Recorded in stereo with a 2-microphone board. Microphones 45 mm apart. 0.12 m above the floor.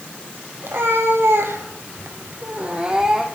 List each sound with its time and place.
0.6 s a cat meowing: 60° right (ahead or behind), 1.6 m; by 3.2 s 10° right (ahead or behind), 1.3 m